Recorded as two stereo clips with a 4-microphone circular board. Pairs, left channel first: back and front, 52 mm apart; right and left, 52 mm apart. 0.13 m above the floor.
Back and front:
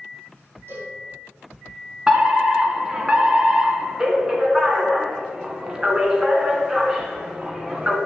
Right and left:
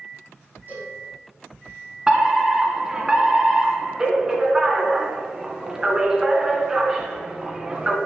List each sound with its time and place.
0.7 s a cowbell: 35° left, 7 m
2.1 s a fire alarm: 45° left, 2 m